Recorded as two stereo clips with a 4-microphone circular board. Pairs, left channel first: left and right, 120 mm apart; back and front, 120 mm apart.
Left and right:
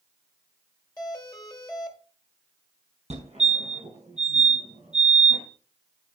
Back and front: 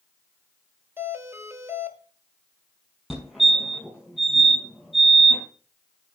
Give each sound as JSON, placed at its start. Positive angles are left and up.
{"t": 1.0, "sound": "a doorbell", "azimuth_deg": 55, "distance_m": 1.6}
{"t": 3.1, "sound": "a fire alarm", "azimuth_deg": -85, "distance_m": 5.5}